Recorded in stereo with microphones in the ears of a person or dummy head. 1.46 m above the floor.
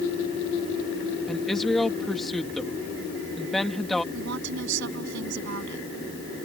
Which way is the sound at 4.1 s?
80° right.